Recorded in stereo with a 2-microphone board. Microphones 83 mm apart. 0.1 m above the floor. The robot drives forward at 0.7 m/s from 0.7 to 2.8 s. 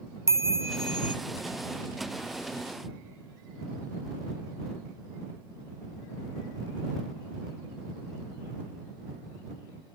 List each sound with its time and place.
0.3 s a chime: 35° right (ahead or behind), 0.6 m; by 1.1 s 25° right (ahead or behind), 0.8 m